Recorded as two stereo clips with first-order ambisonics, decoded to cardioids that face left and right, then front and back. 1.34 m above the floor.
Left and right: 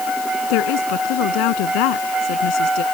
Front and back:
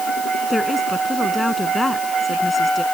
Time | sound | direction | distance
0.5 | a woman speaking | 80° left | ?